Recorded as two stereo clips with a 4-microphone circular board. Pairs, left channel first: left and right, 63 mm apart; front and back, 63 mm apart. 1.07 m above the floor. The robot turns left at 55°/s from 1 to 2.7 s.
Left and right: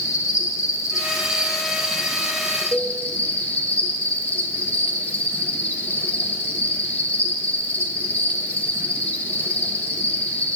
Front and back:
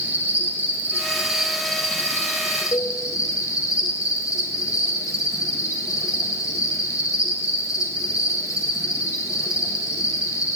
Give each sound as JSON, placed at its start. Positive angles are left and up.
{"t": 0.0, "sound": "an insect", "azimuth_deg": 120, "distance_m": 1.3}
{"t": 2.7, "sound": "a cowbell", "azimuth_deg": 10, "distance_m": 0.8}